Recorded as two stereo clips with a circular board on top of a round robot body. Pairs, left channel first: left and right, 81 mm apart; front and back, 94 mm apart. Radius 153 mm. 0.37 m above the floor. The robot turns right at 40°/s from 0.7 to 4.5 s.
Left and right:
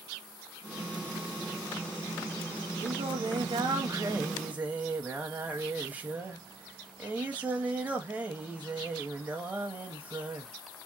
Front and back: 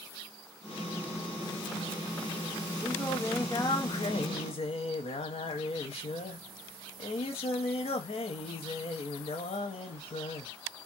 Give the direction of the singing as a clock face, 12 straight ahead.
3 o'clock.